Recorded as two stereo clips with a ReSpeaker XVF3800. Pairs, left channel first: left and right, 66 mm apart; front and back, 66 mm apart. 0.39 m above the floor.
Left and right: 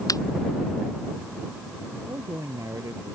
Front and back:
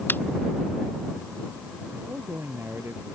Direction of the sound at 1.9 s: 125° right.